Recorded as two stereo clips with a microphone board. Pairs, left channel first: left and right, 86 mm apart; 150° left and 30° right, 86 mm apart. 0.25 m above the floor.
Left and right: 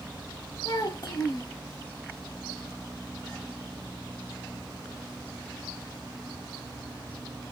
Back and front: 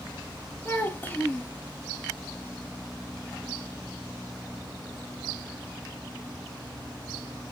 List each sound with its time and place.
0.7 s a child speaking: 100° left, 0.7 m